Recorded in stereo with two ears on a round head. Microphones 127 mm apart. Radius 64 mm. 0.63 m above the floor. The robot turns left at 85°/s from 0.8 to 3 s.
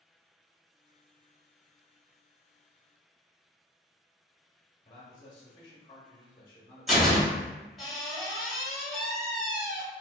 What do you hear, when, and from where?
4.8 s a man speaking: 30° left (ahead or behind), 0.7 m
6.9 s a door slam: centre (ahead or behind), 1.1 m